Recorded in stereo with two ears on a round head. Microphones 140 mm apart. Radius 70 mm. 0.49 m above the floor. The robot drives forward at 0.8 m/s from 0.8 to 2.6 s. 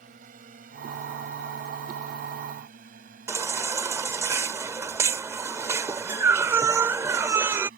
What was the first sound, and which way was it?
A drone, 55° right (ahead or behind).